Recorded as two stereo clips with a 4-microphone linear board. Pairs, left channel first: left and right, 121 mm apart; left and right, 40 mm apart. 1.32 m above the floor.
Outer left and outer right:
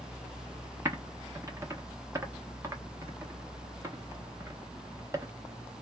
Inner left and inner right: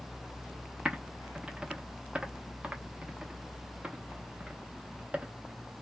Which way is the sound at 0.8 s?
25° right (ahead or behind).